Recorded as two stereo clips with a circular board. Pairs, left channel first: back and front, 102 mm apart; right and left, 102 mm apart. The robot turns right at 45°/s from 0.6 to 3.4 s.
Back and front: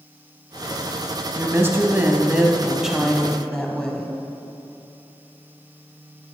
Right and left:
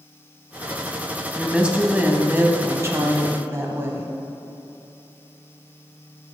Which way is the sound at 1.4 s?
15° left.